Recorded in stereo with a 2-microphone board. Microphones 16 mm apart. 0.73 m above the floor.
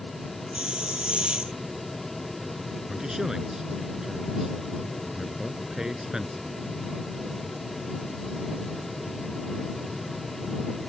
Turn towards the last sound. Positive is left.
turn(degrees=-35)  # may be behind; listen again after turning